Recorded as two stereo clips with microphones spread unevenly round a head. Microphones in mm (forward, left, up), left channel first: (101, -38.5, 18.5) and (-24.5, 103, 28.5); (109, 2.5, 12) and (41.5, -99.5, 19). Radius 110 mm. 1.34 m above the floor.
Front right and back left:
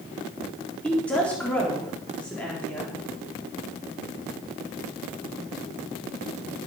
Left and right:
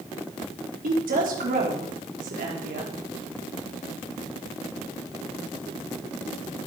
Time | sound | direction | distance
0.8 | a woman speaking | 135° right | 4 m